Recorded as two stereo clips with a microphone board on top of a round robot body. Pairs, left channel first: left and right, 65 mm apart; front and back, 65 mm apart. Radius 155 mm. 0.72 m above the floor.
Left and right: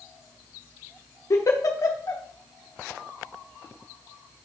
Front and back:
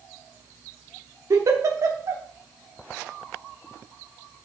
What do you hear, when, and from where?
1.3 s a giggle: 135° left, 1.1 m